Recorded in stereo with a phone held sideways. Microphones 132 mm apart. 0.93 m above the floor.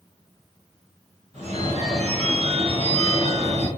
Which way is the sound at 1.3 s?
55° right (ahead or behind).